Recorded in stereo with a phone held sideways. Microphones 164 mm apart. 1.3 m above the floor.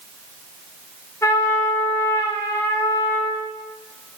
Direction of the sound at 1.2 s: 15° left (ahead or behind).